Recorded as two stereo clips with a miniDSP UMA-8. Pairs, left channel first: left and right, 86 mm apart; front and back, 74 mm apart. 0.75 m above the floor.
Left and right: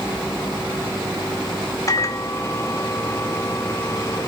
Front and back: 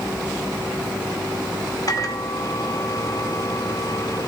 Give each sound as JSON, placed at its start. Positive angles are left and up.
{"t": 1.9, "sound": "a microwave", "azimuth_deg": 35, "distance_m": 2.0}